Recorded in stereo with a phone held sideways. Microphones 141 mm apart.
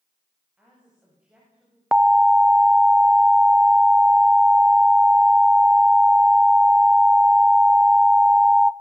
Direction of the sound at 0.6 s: 10° right (ahead or behind).